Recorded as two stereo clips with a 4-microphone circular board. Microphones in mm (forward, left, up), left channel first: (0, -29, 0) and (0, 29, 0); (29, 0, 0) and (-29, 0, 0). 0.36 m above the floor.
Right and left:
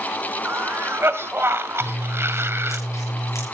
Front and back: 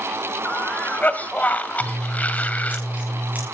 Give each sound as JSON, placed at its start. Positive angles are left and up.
{"t": 0.5, "sound": "a cough", "azimuth_deg": 60, "distance_m": 1.9}
{"t": 1.8, "sound": "scissors", "azimuth_deg": -120, "distance_m": 5.5}